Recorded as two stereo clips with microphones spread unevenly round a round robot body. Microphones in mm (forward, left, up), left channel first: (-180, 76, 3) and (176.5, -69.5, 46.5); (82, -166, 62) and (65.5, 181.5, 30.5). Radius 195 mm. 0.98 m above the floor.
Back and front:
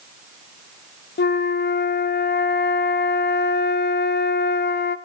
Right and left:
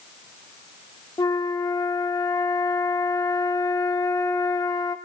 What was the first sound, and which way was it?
A flute, 150° right.